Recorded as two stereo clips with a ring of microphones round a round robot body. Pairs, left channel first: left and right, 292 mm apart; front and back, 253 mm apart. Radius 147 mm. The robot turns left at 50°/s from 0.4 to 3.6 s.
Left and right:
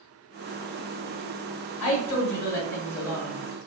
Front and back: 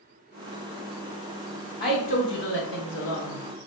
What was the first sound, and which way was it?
A woman speaking, 75° left.